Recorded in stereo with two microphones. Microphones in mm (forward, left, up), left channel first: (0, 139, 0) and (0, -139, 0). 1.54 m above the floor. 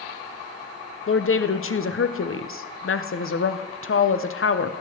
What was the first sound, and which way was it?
A woman speaking, 55° left (ahead or behind).